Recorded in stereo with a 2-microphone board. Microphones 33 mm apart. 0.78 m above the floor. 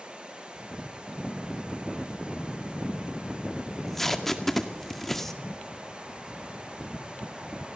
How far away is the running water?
About 7.5 m.